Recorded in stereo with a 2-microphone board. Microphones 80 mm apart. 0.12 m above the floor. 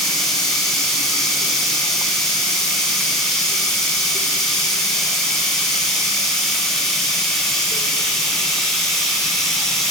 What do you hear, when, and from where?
0.0 s running water: 5° left (ahead or behind), 1.6 m